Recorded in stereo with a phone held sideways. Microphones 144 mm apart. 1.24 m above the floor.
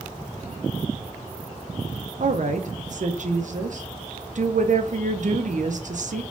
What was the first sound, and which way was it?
A woman speaking, 60° right (ahead or behind).